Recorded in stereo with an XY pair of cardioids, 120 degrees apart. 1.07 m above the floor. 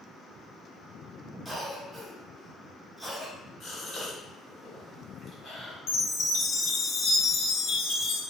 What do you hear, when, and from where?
1.4 s a cough: 5° right, 1.2 m
3.6 s a gasp: 45° left, 1.6 m
5.9 s a chime: 70° left, 0.9 m